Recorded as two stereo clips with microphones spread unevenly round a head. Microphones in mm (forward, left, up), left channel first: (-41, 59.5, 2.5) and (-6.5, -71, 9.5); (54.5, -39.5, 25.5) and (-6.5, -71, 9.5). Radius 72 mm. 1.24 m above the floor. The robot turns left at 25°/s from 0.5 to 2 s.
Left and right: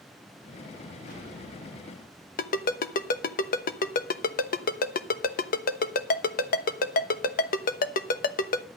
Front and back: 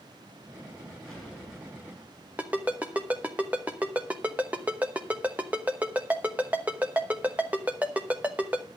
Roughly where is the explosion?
Behind left.